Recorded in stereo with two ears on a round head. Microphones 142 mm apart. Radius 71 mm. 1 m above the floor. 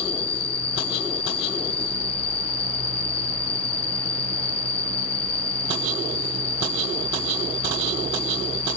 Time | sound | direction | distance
0.0 | an insect | 35° left (ahead or behind) | 0.9 m